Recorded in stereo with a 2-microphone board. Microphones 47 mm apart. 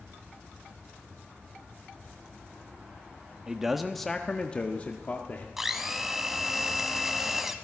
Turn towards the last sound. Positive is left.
turn(degrees=-5)  # may be behind; listen again after turning